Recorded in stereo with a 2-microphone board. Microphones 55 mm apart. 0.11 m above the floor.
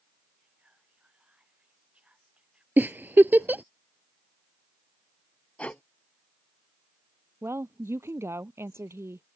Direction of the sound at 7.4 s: 50° right (ahead or behind).